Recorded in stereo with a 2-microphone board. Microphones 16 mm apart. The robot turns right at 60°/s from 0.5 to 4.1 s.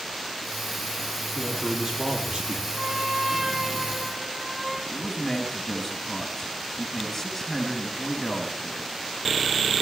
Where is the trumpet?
75° right, 9.5 m; by 4.8 s 5° left, 9.5 m.